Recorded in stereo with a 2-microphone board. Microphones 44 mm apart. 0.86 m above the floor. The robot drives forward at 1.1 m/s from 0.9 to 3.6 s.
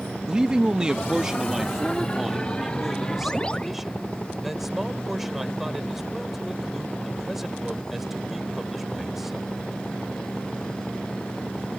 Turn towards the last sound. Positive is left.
turn(degrees=-5)  # may be behind; listen again after turning